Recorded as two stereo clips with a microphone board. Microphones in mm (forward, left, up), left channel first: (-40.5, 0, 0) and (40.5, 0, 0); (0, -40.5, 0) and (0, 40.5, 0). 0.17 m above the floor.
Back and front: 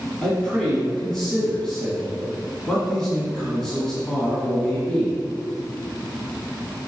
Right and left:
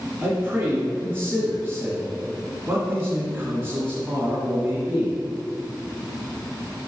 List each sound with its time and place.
0.2 s a man speaking: 105° left, 1.6 m